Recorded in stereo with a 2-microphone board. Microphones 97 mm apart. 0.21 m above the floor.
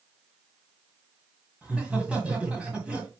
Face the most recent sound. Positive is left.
turn(degrees=-15)  # may be behind; listen again after turning